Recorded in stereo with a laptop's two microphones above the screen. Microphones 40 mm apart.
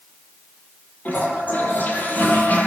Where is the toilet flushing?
40° left (ahead or behind), 7.5 m.